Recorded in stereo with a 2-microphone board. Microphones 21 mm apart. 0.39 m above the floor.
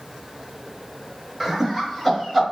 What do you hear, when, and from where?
1.4 s laughter: 5° left (ahead or behind), 1.1 m; by 2.4 s 10° left (ahead or behind), 1.6 m